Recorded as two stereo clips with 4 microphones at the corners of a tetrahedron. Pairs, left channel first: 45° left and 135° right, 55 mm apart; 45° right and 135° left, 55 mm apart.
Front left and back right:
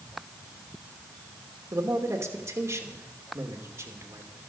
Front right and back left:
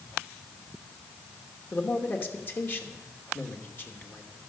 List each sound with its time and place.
1.7 s a man speaking: 95° right, 2.5 m